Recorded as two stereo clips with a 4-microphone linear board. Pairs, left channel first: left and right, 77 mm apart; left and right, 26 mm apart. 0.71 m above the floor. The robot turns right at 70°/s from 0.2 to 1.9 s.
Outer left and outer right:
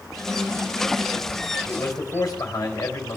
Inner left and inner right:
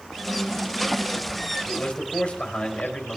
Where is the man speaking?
40° left (ahead or behind), 3.5 m; by 3.2 s 55° left (ahead or behind), 3.5 m.